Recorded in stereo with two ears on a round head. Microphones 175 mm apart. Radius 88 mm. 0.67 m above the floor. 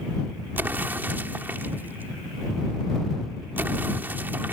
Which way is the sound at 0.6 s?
10° right (ahead or behind).